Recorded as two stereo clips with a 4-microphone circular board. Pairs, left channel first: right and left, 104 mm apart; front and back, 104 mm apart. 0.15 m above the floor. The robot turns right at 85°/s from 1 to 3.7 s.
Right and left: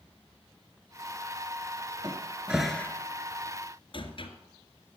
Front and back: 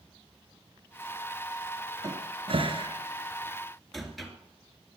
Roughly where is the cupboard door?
Behind left.